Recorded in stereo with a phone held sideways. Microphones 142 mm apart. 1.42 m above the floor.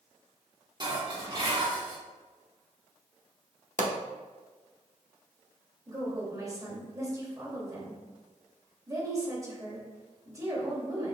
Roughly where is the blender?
I don't hear a blender.